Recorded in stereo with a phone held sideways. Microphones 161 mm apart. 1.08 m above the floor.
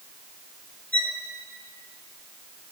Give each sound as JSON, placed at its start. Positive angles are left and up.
{"t": 0.9, "sound": "a violin", "side_deg": -65, "distance_m": 1.7}